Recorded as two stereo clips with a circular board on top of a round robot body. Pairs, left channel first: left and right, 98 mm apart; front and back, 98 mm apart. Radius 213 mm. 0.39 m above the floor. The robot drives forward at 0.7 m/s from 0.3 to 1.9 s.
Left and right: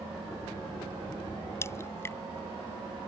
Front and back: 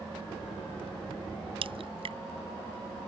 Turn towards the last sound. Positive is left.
turn(degrees=155)